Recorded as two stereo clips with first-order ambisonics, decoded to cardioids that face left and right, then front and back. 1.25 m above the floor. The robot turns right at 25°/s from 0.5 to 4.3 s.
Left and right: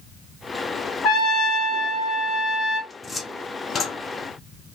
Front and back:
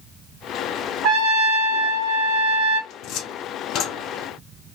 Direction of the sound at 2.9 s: 10° left.